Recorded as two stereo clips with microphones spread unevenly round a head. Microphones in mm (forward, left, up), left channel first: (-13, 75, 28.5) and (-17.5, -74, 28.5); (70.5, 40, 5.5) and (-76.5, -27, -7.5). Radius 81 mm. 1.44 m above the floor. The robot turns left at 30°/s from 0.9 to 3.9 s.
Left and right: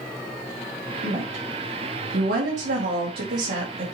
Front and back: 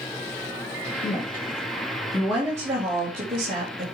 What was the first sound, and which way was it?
A woman speaking, 35° right.